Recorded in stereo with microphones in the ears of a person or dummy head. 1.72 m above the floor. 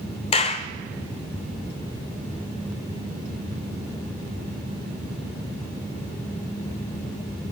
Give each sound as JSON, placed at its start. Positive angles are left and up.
{"t": 0.3, "sound": "a clap", "side_deg": 35, "distance_m": 0.6}